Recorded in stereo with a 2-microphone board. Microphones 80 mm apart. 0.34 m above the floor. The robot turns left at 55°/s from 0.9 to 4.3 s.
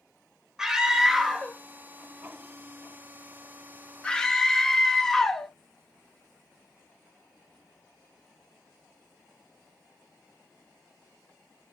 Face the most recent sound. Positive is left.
turn(degrees=5)  # may be behind; listen again after turning